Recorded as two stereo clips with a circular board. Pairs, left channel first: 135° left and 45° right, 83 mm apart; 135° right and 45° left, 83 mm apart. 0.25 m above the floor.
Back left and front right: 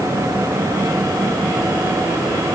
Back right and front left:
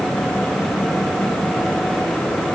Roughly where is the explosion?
No explosion in this recording.